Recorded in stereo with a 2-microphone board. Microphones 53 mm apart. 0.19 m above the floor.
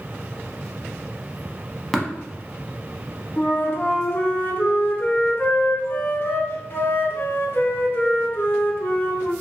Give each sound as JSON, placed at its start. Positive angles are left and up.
{"t": 1.9, "sound": "tapping", "side_deg": 5, "distance_m": 0.6}
{"t": 3.4, "sound": "a flute", "side_deg": 50, "distance_m": 0.6}